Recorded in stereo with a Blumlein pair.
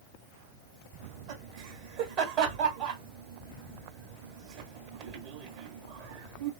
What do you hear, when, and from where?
1.0 s laughter: 45° right, 1.5 m